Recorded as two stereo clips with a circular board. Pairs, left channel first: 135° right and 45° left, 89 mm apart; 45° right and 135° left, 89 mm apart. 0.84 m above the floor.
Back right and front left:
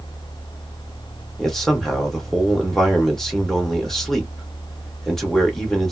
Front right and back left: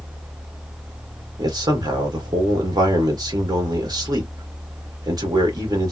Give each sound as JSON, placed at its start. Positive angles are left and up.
{"t": 1.4, "sound": "a man speaking", "azimuth_deg": 140, "distance_m": 1.2}